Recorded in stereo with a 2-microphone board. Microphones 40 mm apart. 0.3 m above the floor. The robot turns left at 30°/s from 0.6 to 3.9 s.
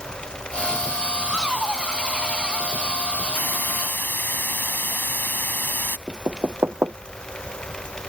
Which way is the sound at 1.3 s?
165° right.